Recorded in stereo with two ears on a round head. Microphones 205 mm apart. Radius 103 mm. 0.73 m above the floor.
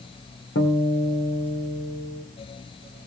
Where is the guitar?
55° left (ahead or behind), 2.5 m.